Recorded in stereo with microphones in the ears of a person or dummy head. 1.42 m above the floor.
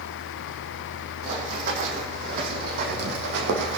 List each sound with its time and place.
1.2 s running footsteps: 45° right (ahead or behind), 4 m; by 3.8 s 65° right (ahead or behind), 3.5 m